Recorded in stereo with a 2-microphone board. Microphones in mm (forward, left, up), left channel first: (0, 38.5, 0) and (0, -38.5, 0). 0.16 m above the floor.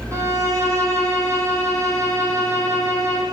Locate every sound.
0.1 s a violin: 40° right (ahead or behind), 4 m